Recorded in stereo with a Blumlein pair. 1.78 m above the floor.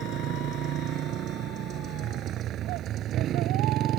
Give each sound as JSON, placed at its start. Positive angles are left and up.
{"t": 0.0, "sound": "a motorcycle", "azimuth_deg": -35}